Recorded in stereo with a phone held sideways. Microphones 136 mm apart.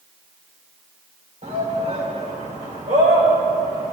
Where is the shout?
55° right (ahead or behind), 2.5 m; by 3.9 s 70° right (ahead or behind), 3.5 m.